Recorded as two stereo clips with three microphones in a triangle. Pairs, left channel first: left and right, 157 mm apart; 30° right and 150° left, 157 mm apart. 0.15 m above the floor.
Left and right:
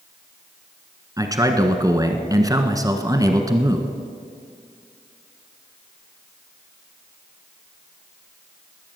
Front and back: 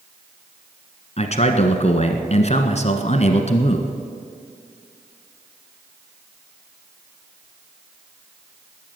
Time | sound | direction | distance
1.2 | a man speaking | 35° right | 1.3 m